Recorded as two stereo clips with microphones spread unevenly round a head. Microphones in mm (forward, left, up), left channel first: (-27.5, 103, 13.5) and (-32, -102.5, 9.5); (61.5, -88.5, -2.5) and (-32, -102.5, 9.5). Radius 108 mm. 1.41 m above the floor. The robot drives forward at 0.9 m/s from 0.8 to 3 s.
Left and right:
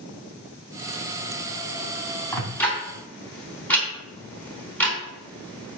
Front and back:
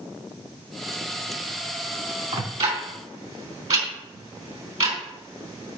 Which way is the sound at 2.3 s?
170° left.